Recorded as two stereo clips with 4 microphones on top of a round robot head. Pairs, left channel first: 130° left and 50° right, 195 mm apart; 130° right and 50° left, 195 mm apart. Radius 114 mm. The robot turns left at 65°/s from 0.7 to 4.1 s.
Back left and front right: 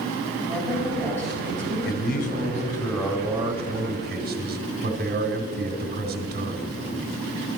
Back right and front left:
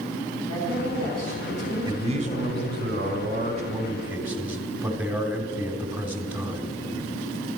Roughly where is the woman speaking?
Ahead left.